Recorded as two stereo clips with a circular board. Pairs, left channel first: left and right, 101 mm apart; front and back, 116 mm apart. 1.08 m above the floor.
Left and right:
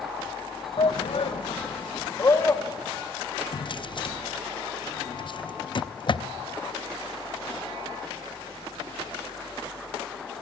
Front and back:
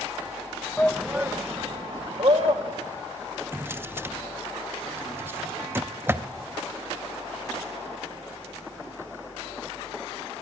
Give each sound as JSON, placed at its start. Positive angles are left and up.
{"t": 0.8, "sound": "a shout", "azimuth_deg": 75, "distance_m": 0.8}
{"t": 3.5, "sound": "a drawer", "azimuth_deg": 115, "distance_m": 0.6}